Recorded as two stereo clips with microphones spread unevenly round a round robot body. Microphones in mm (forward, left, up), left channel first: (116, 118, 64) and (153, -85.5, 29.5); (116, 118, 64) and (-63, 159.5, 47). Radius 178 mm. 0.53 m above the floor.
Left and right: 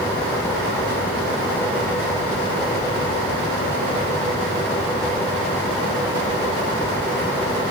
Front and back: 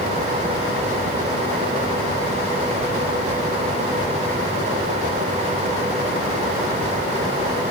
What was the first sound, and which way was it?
Only background noise.